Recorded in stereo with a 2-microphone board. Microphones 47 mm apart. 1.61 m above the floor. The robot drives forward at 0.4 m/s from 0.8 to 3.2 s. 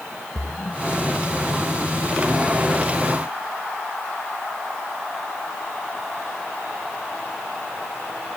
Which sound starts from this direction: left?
A splash, at 0.3 s.